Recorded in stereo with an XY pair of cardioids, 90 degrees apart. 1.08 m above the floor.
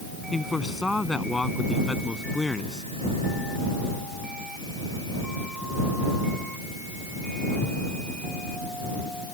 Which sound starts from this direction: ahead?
A man speaking, at 0.3 s.